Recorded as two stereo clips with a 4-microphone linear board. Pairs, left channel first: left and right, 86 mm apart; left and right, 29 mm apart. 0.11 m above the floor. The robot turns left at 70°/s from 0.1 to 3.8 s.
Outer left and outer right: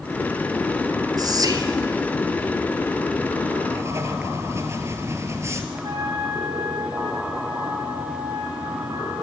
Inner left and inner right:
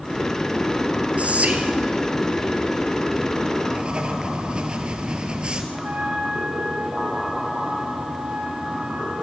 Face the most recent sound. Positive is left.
turn(degrees=-55)  # may be behind; listen again after turning